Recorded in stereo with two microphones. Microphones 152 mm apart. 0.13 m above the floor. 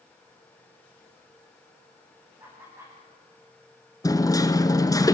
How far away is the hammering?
About 1.0 m.